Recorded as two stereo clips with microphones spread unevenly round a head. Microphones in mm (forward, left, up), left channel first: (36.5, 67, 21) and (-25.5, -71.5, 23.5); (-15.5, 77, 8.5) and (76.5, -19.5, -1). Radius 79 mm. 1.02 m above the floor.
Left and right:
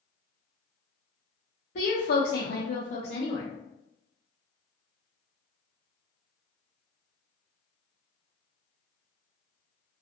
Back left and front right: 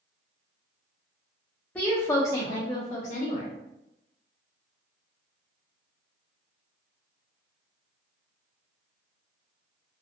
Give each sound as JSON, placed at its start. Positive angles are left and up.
{"t": 1.8, "sound": "a woman speaking", "azimuth_deg": 55, "distance_m": 0.9}